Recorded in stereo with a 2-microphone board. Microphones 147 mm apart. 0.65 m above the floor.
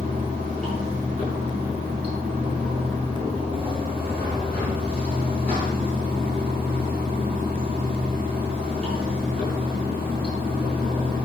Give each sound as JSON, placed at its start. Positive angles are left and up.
{"t": 0.0, "sound": "running water", "side_deg": -45, "distance_m": 5.0}